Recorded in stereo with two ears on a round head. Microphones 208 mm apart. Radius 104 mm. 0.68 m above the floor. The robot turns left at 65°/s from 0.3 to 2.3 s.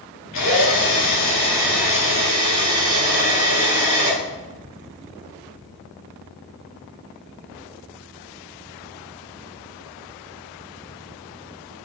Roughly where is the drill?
Left.